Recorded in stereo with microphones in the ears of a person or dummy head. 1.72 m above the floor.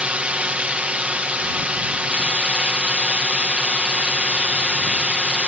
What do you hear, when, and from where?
0.0 s a drone: 15° right (ahead or behind)